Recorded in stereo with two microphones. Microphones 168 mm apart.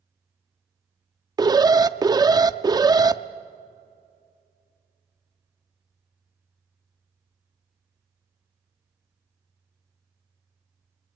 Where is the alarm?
25° right (ahead or behind), 0.5 m.